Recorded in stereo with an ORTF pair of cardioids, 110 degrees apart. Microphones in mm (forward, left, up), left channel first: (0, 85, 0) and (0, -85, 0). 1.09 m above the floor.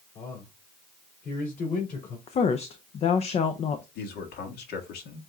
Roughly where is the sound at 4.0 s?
Left.